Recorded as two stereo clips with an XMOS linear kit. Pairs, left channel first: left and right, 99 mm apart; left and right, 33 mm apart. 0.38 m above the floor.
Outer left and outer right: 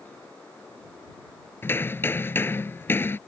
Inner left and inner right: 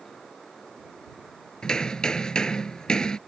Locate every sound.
1.6 s hammering: 20° left (ahead or behind)